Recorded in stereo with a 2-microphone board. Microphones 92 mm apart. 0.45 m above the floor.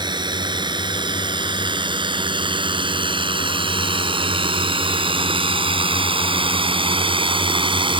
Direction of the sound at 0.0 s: 55° right (ahead or behind).